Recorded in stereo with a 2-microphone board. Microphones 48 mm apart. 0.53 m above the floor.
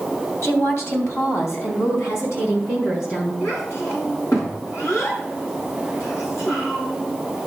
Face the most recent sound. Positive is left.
turn(degrees=85)